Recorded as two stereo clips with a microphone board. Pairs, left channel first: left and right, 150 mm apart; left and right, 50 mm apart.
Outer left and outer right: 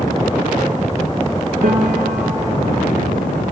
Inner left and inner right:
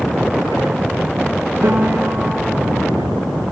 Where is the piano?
70° right (ahead or behind), 3.5 m.